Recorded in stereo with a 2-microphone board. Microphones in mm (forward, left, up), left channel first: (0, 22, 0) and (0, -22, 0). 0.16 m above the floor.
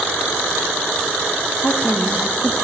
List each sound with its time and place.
1.6 s a woman speaking: 55° left (ahead or behind), 5.5 m